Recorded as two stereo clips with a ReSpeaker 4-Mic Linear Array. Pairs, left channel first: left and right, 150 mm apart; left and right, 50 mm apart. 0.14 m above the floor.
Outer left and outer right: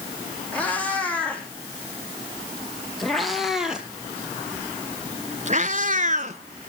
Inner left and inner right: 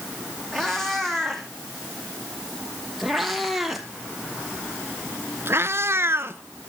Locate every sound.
0.5 s a cat meowing: 10° left (ahead or behind), 3.5 m; by 6.4 s 45° right (ahead or behind), 1.0 m